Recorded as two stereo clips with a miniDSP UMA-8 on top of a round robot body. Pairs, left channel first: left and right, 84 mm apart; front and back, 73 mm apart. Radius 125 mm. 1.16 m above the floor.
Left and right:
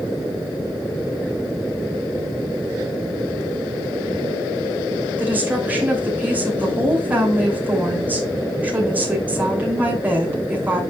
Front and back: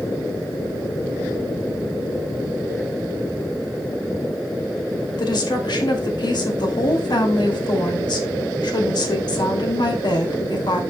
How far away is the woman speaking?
About 2.5 m.